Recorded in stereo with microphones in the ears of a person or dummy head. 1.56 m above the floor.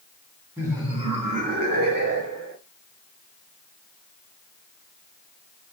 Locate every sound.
0.6 s laughter: 15° right (ahead or behind), 1.2 m; by 2.6 s 75° right (ahead or behind), 1.5 m